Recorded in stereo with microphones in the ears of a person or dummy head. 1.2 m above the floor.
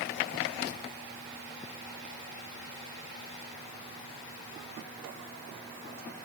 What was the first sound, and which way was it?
Only background noise.